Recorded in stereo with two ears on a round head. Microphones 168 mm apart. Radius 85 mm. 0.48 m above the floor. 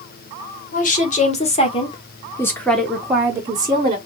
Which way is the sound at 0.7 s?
45° left (ahead or behind).